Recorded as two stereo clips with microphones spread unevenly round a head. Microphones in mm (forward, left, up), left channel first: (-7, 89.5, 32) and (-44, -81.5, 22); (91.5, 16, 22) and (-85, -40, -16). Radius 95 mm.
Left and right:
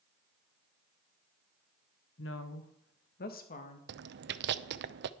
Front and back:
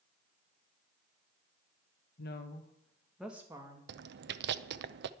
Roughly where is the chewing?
Behind right.